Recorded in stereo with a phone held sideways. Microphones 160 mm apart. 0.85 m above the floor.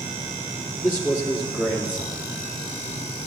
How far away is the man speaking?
About 2.5 m.